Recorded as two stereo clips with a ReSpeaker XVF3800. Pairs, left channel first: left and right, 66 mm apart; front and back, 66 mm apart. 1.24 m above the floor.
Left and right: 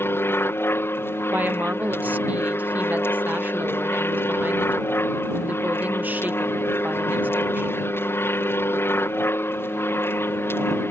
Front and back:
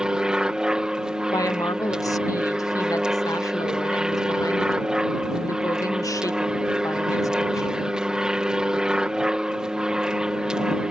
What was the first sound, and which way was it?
An aircraft, 110° left.